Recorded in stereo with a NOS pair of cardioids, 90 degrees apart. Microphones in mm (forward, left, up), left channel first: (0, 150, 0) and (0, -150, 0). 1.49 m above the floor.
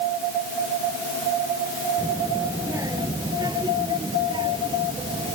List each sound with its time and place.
2.0 s a child speaking: 10° right; by 5.4 s 15° right